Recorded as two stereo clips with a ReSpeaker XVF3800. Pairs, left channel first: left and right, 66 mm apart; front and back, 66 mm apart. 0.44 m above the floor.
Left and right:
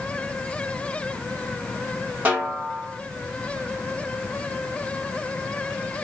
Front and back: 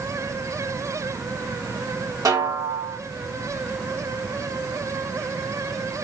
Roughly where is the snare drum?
Behind right.